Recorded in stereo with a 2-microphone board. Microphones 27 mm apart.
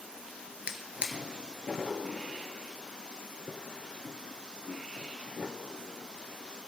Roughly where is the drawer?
Right.